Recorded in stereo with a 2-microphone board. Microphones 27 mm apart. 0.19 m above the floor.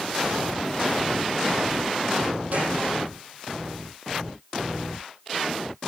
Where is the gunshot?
75° right (ahead or behind), 6.5 m.